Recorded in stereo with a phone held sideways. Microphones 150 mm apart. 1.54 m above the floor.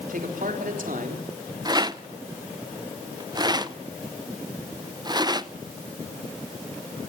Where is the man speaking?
65° right (ahead or behind), 3.5 m.